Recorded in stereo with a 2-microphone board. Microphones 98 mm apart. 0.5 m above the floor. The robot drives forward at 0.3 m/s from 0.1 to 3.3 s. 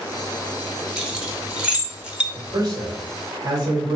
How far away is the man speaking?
About 1.6 m.